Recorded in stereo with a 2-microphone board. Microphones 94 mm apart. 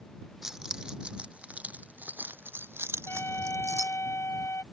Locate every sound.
0.4 s keys jangling: 5° right (ahead or behind); by 4.0 s 35° right (ahead or behind)
3.1 s a trumpet: 25° left (ahead or behind)